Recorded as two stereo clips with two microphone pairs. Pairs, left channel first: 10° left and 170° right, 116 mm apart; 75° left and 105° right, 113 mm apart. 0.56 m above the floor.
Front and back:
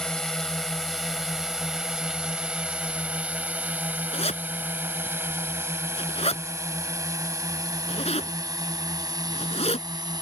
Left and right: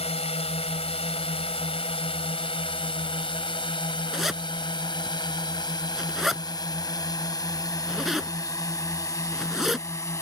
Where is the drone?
90° left; by 10.2 s 135° left.